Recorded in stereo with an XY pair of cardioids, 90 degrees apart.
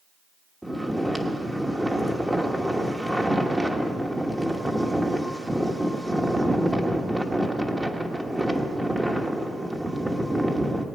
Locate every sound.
0.6 s snoring: 10° right, 1.3 m